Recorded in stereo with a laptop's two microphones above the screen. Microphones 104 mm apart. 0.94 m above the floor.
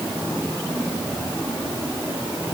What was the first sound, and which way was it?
Only background noise.